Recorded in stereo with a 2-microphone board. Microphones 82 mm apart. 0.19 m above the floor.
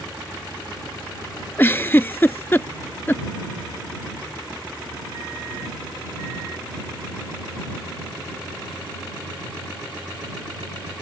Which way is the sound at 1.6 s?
25° left (ahead or behind).